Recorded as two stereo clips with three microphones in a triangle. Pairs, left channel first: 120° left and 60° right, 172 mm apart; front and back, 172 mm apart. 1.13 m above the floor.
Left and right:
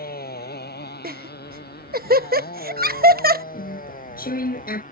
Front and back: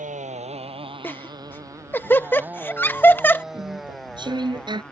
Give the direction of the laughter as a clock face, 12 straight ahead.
3 o'clock.